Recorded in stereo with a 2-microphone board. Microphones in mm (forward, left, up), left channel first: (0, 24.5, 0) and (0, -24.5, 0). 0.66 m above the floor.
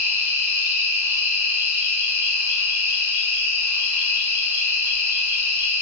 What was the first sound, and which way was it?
An insect, 60° right (ahead or behind).